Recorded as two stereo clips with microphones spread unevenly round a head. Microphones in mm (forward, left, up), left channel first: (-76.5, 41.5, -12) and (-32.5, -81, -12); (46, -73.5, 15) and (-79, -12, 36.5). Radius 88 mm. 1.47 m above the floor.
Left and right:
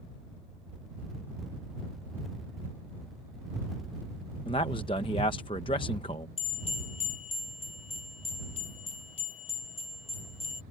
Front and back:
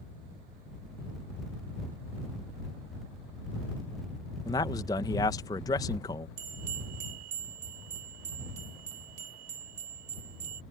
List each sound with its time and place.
4.5 s a man speaking: 45° left
6.4 s a bell: 150° left